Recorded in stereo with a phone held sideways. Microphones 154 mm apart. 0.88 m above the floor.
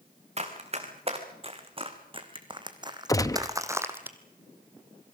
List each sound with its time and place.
0.4 s running footsteps: 45° right (ahead or behind), 4 m; by 4.1 s 10° right (ahead or behind), 1.6 m
3.1 s a gunshot: 20° left (ahead or behind), 0.7 m